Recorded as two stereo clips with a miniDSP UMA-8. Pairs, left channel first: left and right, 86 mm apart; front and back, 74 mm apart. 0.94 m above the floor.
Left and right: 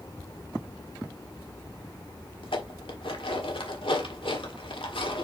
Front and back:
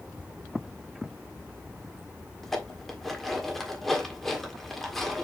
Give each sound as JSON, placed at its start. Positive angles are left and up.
{"t": 2.4, "sound": "dishes clattering", "azimuth_deg": 90, "distance_m": 1.5}